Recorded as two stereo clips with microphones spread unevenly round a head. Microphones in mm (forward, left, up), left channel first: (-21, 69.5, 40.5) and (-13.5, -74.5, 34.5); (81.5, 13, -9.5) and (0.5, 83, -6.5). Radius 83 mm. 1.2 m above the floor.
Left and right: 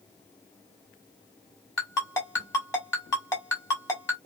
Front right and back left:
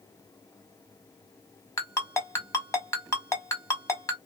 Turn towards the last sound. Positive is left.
turn(degrees=20)